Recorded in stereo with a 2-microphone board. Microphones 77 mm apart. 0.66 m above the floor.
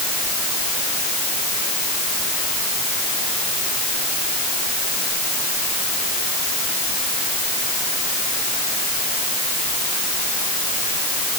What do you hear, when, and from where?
Only background noise.